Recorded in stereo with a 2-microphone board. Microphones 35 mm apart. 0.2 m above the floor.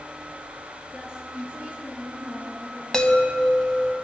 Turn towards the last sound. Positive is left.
turn(degrees=20)  # may be behind; listen again after turning